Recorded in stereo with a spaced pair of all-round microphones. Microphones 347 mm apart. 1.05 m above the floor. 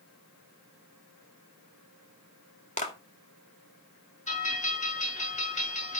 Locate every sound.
2.8 s a clap: 20° left (ahead or behind), 1.9 m
4.3 s a bell: 20° left (ahead or behind), 5 m